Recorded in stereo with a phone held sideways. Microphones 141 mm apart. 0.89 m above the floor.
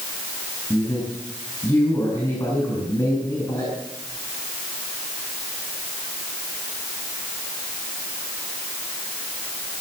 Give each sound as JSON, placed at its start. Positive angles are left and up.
{"t": 0.7, "sound": "a man speaking", "side_deg": 30, "distance_m": 5.5}